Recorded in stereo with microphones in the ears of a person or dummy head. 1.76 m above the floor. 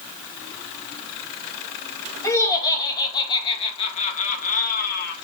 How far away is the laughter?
About 2.5 m.